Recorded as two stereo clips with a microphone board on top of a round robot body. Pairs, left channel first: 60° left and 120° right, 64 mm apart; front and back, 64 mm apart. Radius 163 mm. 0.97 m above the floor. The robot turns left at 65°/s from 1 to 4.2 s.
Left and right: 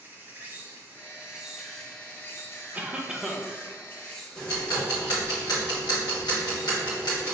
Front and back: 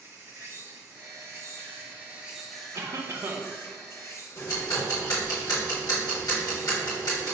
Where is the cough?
175° right, 1.1 m; by 3.5 s 135° left, 1.1 m.